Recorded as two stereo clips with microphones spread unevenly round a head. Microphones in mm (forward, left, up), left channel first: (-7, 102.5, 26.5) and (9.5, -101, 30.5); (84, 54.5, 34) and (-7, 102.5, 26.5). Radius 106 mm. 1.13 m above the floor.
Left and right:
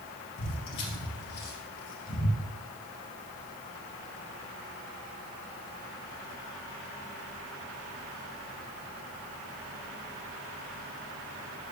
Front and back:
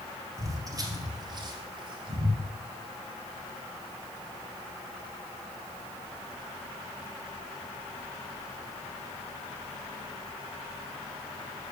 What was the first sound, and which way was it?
Footsteps, 95° left.